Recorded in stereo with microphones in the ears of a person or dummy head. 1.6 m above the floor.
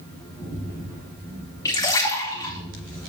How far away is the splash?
About 2 m.